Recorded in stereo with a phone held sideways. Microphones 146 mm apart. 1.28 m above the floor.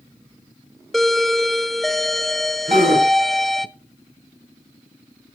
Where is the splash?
No splash in this recording.